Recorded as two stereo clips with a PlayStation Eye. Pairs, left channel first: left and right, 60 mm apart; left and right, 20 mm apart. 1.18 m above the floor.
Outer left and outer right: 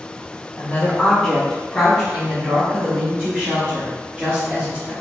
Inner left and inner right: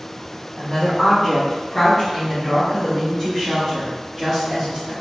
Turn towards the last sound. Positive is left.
turn(degrees=-30)  # may be behind; listen again after turning